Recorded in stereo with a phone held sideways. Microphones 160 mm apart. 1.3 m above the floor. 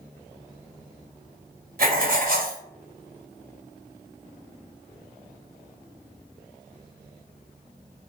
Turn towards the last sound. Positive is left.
turn(degrees=-65)  # may be behind; listen again after turning